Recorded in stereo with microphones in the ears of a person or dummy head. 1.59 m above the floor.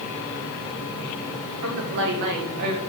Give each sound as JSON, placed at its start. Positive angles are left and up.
{"t": 1.6, "sound": "a woman speaking", "side_deg": -70, "distance_m": 3.5}